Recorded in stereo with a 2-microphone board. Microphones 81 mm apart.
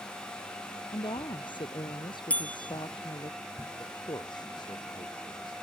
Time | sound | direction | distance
0.9 | a woman speaking | 70° left (ahead or behind) | ?
2.3 | a bell | 15° left (ahead or behind) | ?
3.8 | a man speaking | 60° left (ahead or behind) | ?